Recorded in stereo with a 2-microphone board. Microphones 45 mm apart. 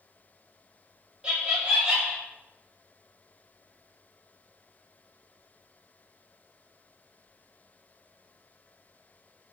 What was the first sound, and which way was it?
Laughter, 20° right (ahead or behind).